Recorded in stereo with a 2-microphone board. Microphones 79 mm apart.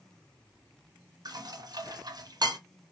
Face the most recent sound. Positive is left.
turn(degrees=-55)  # may be behind; listen again after turning